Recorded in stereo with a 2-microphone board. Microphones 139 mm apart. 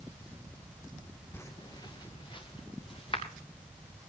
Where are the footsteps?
15° left (ahead or behind), 0.9 m; by 3.2 s 40° left (ahead or behind), 3.5 m.